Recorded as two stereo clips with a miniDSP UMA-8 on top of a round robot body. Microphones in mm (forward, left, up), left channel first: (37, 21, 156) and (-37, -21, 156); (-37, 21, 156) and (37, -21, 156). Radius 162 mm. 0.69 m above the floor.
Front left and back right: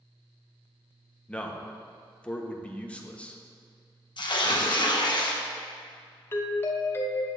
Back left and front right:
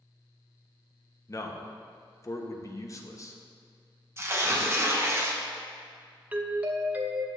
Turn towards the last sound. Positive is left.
turn(degrees=20)